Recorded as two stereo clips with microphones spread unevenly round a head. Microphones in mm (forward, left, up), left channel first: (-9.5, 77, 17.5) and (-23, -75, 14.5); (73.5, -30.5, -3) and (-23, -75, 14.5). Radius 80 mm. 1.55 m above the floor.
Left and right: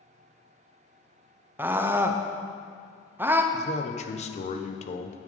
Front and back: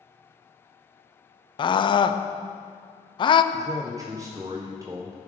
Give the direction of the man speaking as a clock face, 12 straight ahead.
8 o'clock.